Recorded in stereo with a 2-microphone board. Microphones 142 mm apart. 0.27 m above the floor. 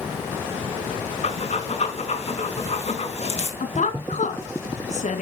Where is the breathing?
50° left (ahead or behind), 3 m.